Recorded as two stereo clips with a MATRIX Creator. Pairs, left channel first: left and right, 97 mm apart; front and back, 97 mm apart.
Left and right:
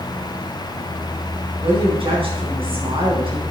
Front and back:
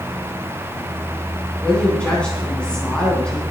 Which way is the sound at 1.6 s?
80° right.